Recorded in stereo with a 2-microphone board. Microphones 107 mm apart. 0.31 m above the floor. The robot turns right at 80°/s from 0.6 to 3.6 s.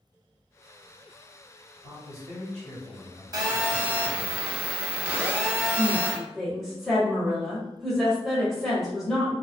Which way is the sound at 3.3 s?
35° right (ahead or behind).